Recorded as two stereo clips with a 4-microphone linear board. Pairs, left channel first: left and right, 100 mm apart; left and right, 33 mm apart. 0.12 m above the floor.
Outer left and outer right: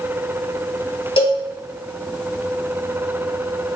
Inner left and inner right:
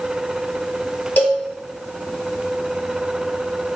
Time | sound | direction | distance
1.2 | a cowbell | 60° left (ahead or behind) | 1.7 m